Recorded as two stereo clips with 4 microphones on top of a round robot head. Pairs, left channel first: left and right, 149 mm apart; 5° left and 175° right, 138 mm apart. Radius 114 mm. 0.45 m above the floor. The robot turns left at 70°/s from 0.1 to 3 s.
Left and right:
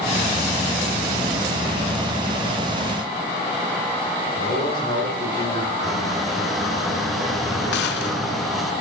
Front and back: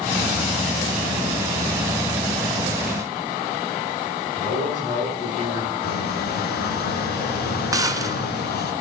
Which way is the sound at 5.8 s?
Straight ahead.